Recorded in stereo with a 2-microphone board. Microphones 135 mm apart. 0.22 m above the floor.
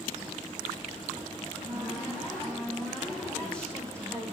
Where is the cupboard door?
5° left (ahead or behind), 7.5 m.